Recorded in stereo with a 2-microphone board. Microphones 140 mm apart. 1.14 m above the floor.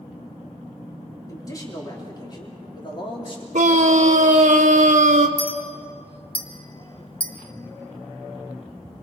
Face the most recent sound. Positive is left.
turn(degrees=40)  # may be behind; listen again after turning